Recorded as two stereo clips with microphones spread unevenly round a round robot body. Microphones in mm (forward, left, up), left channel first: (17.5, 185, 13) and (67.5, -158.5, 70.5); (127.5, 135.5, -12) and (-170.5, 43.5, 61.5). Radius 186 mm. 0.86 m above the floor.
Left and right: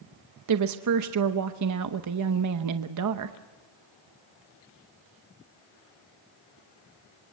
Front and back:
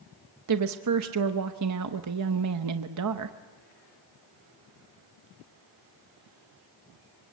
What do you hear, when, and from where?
0.5 s a woman speaking: 120° right, 0.8 m